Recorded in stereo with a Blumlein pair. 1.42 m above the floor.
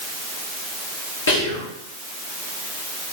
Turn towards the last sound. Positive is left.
turn(degrees=65)